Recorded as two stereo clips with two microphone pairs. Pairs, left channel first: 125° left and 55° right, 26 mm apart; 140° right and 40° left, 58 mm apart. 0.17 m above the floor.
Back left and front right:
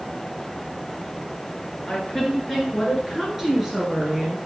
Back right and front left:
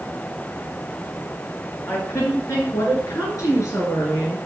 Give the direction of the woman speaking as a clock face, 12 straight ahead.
5 o'clock.